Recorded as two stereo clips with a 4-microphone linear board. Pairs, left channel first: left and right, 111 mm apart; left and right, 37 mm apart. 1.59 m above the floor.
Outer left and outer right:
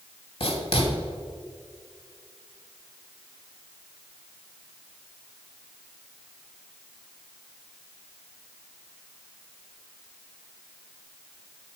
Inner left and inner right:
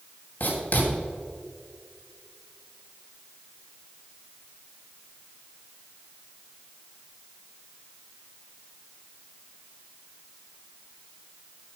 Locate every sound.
0.4 s writing: 60° left (ahead or behind), 2.5 m